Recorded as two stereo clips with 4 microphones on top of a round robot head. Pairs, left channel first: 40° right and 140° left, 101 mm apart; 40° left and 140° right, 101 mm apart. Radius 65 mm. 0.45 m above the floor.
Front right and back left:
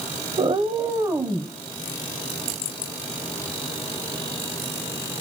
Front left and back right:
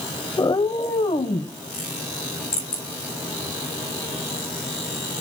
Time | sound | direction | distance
0.4 | a cat meowing | 95° left | 0.9 m